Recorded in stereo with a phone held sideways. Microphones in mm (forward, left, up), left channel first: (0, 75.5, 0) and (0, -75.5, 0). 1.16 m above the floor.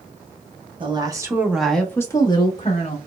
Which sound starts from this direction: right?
A woman speaking, at 0.8 s.